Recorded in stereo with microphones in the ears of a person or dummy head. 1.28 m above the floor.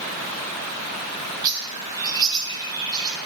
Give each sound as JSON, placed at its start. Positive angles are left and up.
{"t": 1.4, "sound": "a bird", "side_deg": -20, "distance_m": 0.9}